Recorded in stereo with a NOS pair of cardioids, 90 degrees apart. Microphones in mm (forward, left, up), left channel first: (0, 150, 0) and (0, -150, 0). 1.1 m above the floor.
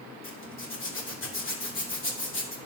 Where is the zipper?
40° left, 2.5 m.